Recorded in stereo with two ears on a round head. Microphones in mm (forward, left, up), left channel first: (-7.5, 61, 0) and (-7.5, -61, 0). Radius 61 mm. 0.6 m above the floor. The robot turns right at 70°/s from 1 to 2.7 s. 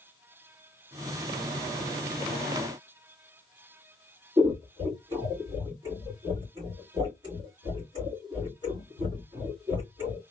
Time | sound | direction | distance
4.4 | scissors | 35° right (ahead or behind) | 1.7 m